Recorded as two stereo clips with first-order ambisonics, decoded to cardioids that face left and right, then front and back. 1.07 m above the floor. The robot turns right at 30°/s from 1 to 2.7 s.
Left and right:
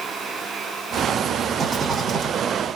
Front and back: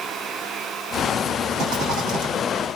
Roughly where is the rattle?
Behind.